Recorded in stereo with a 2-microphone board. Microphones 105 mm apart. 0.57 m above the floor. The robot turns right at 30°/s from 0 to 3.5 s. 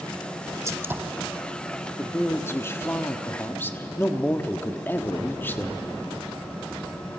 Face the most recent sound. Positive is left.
turn(degrees=20)  # may be behind; listen again after turning